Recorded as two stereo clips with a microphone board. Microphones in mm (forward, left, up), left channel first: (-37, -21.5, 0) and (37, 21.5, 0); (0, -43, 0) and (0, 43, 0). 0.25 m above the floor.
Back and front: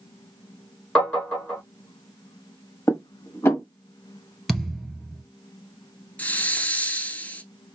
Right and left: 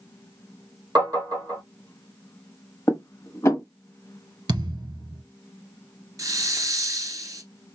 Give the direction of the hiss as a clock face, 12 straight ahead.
7 o'clock.